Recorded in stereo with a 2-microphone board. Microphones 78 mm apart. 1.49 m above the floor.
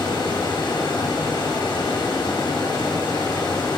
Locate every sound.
0.0 s running water: 80° left, 2.5 m